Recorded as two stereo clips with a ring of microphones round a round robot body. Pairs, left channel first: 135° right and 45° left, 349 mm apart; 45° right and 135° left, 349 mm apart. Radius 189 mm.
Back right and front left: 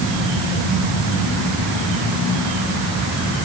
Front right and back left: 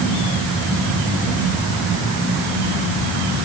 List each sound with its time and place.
Only background noise.